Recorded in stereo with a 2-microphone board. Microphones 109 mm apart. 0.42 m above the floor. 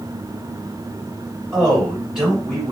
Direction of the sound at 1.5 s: 5° right (ahead or behind).